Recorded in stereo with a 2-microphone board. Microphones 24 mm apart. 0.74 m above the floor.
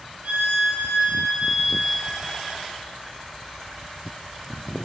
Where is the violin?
70° right (ahead or behind), 2.5 m.